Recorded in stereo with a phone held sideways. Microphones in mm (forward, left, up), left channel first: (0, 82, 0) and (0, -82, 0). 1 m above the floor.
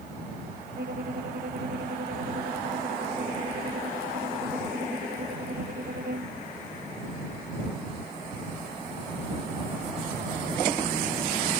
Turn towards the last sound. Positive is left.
turn(degrees=-75)  # may be behind; listen again after turning